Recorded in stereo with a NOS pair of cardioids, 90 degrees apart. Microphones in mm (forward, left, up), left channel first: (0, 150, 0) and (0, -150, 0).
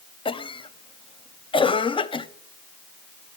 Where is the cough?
20° left, 0.7 m.